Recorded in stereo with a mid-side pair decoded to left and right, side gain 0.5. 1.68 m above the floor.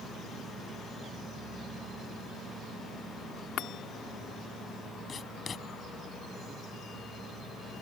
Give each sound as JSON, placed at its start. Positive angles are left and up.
{"t": 3.6, "sound": "a chime", "azimuth_deg": 70}
{"t": 5.1, "sound": "writing", "azimuth_deg": 45}